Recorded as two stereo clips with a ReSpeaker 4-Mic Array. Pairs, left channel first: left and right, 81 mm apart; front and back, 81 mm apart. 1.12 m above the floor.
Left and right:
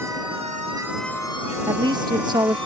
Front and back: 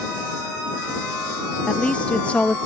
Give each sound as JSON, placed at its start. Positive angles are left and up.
{"t": 1.7, "sound": "a woman speaking", "azimuth_deg": -75}